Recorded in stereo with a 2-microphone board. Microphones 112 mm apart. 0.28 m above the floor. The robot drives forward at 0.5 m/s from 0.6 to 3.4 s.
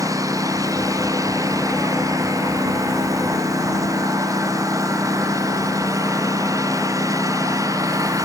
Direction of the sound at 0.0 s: 30° right (ahead or behind).